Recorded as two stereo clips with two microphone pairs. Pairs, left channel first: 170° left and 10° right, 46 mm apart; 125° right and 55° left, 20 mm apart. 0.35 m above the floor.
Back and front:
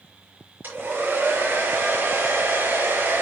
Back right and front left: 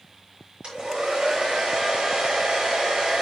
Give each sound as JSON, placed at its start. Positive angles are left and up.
{"t": 0.6, "sound": "a hair dryer", "azimuth_deg": 30, "distance_m": 5.0}